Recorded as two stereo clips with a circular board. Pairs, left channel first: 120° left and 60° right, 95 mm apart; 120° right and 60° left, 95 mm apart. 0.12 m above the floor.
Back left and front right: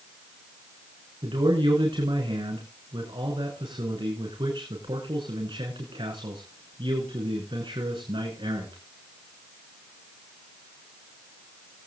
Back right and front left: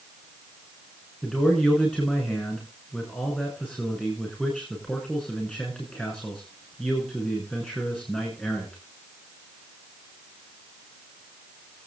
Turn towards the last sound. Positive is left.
turn(degrees=-40)